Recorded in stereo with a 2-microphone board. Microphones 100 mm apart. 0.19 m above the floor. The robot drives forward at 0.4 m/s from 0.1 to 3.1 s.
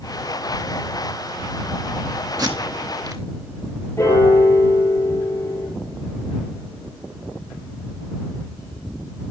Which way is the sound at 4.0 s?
30° left (ahead or behind).